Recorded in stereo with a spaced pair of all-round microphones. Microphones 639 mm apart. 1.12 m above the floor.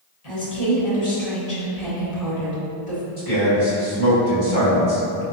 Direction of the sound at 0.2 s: 70° left (ahead or behind).